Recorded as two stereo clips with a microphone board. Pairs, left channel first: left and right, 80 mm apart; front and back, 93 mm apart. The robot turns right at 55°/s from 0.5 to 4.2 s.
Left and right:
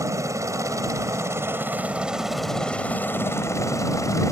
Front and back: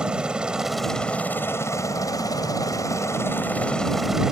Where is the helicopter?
105° right; by 4.3 s 100° left.